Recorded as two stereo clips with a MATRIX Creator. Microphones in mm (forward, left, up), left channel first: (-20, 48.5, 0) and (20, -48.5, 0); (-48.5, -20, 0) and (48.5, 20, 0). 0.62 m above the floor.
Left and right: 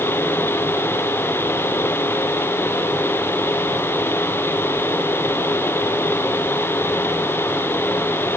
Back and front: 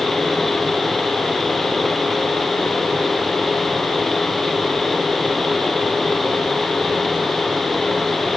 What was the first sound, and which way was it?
Only background noise.